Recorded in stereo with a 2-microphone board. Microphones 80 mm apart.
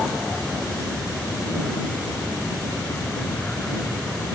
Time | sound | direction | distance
0.0 | an aircraft | 10° left (ahead or behind) | ?